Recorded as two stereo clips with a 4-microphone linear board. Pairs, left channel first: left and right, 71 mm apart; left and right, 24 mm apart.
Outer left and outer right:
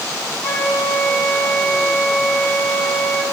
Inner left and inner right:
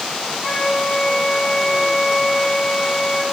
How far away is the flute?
About 3.5 m.